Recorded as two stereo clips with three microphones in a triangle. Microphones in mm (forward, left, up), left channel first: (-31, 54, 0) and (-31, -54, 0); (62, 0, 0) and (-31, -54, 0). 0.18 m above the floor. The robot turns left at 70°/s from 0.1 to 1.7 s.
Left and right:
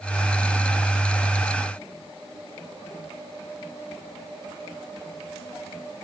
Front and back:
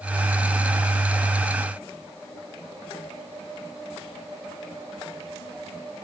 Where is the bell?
No bell in this recording.